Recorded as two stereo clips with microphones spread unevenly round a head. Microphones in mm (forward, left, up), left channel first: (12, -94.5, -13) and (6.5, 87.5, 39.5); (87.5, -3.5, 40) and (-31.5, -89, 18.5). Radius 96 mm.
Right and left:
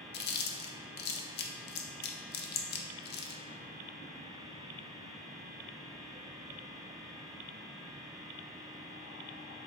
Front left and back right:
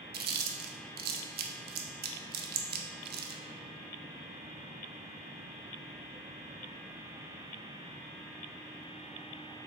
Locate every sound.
0.1 s chewing: 135° right, 0.7 m